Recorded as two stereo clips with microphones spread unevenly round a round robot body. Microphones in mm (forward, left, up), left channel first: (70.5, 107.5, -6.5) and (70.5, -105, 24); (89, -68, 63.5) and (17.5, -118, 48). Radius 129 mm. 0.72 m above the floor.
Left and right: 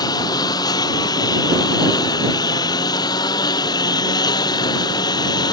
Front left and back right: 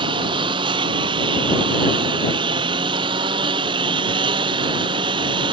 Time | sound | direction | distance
0.0 | a lawn mower | 165° left | ?